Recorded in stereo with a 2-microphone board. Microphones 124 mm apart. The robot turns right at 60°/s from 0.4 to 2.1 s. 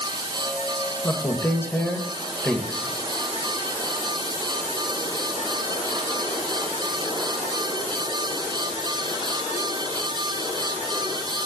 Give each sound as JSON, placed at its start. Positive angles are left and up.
{"t": 1.0, "sound": "a man speaking", "side_deg": 25, "distance_m": 0.9}